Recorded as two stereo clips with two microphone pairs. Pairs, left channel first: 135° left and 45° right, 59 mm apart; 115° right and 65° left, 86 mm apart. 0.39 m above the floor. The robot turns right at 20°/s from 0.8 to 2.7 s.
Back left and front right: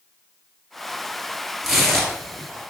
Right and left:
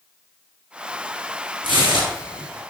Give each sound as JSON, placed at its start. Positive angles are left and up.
{"t": 1.6, "sound": "tearing paper", "azimuth_deg": 45, "distance_m": 1.4}